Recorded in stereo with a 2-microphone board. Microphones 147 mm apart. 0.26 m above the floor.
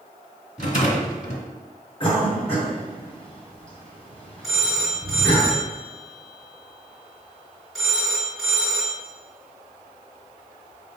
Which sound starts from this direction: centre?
A phone ringing, at 4.4 s.